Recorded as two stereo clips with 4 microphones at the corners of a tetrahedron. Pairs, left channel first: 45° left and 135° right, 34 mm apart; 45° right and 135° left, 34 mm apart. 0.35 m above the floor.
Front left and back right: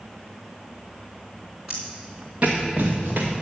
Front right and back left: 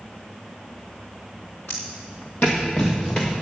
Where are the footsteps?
50° right, 2 m; by 3.3 s 110° right, 3 m.